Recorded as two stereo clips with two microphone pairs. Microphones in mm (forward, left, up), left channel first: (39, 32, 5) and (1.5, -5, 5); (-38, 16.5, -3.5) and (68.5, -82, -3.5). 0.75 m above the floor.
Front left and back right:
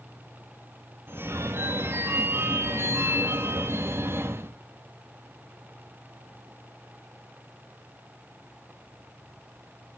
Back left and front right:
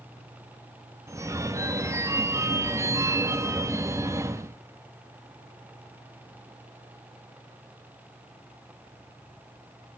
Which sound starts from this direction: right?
A phone ringing, at 1.1 s.